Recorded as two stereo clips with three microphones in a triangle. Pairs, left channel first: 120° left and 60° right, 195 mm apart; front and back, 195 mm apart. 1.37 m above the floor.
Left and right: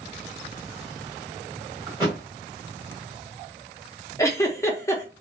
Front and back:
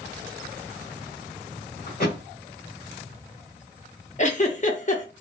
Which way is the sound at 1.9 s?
5° left.